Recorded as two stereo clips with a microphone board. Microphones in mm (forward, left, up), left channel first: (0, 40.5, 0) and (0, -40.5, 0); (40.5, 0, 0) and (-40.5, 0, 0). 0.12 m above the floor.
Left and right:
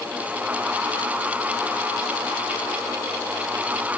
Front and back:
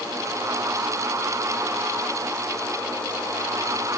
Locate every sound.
Only background noise.